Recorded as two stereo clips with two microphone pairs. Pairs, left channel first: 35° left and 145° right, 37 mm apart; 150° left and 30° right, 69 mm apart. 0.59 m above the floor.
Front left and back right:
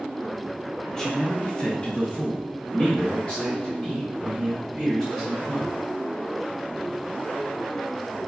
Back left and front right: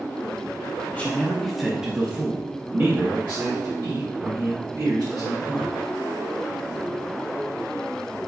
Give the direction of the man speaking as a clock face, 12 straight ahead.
9 o'clock.